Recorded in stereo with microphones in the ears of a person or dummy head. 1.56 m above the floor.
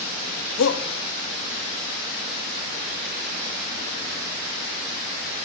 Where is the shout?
70° left (ahead or behind), 3 m.